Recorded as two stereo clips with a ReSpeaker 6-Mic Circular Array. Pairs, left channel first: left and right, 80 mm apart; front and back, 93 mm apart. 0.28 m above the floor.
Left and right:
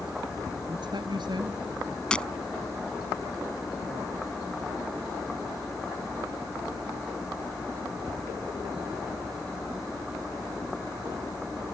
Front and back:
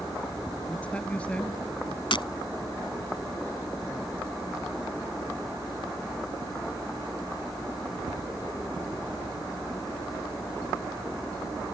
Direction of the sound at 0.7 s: 75° right.